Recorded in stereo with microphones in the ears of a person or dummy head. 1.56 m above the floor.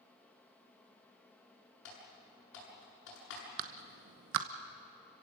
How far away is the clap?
About 1.2 m.